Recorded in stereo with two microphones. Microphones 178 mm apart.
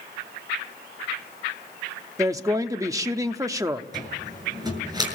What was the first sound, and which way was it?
A woman speaking, 15° right (ahead or behind).